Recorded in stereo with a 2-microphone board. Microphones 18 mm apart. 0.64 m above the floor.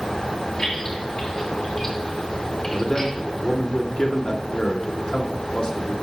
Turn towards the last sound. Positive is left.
turn(degrees=50)  # may be behind; listen again after turning